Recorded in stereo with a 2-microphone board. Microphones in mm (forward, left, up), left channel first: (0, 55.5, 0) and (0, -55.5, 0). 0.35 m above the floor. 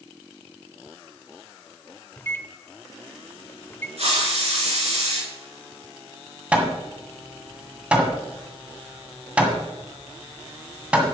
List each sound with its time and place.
2.2 s a microwave: 20° left (ahead or behind), 0.6 m
4.0 s a hiss: 70° right (ahead or behind), 5 m
6.5 s hammering: 10° right (ahead or behind), 1.9 m